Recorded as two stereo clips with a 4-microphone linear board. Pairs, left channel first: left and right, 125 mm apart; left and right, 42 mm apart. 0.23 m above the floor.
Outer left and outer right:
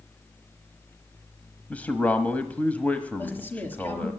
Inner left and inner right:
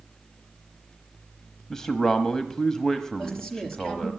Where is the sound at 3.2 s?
15° left (ahead or behind), 5 m.